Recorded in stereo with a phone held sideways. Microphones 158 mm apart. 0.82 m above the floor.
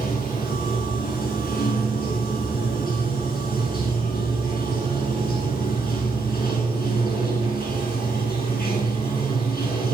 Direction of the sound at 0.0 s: 80° left.